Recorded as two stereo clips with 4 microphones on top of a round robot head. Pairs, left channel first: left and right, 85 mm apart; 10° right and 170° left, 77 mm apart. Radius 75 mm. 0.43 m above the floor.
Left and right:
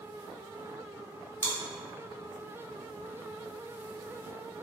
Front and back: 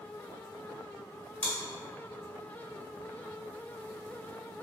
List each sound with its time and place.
1.4 s chewing: 60° right, 1.1 m